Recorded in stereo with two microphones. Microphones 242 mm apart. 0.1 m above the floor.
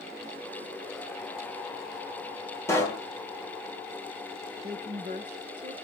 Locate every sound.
2.7 s a pop: 10° left (ahead or behind), 3 m
4.6 s a woman speaking: 40° right (ahead or behind), 1.9 m